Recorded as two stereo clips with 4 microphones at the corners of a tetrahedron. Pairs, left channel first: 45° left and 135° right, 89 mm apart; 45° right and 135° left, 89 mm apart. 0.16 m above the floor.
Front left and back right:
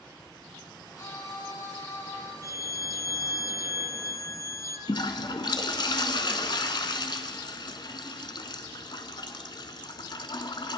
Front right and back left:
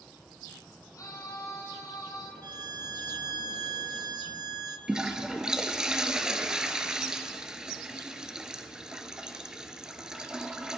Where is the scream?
Straight ahead, 5.5 m; by 2.3 s 10° right, 5.5 m.